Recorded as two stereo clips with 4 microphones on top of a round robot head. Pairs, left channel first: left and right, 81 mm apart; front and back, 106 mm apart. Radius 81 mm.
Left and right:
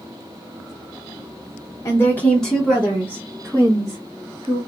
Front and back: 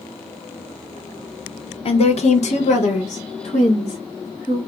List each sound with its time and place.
1.9 s a woman speaking: 30° left, 0.8 m; by 4.6 s 30° right, 2 m